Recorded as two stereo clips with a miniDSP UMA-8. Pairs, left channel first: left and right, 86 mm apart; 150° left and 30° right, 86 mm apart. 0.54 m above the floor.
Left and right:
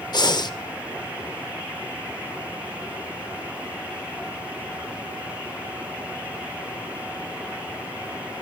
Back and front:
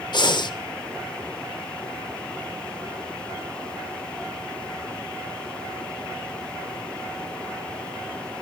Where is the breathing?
120° left, 0.7 m.